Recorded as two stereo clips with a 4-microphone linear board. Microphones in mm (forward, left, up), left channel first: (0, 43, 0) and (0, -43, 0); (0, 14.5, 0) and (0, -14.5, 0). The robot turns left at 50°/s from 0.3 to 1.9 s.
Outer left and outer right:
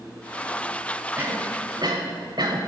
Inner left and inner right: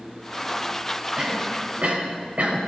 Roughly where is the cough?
Right.